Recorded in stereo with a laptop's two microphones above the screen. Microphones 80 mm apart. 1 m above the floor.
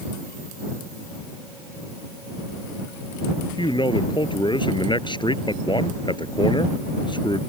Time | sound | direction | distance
3.6 | a man speaking | 75° left (ahead or behind) | ?